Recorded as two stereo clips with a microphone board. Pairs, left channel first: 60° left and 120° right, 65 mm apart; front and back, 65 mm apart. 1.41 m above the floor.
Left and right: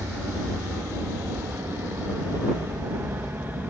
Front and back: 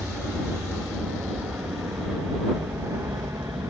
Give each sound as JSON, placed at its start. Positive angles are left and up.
{"t": 0.0, "sound": "an aircraft", "azimuth_deg": -125}